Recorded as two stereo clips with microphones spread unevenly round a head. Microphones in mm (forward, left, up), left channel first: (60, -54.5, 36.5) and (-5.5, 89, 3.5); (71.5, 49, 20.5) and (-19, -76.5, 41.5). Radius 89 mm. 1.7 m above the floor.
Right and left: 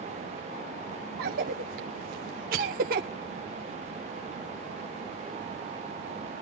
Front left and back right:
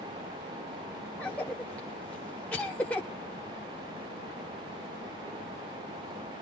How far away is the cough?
About 0.7 m.